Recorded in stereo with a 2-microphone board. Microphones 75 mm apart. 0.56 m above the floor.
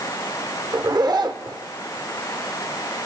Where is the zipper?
65° right (ahead or behind), 0.7 m.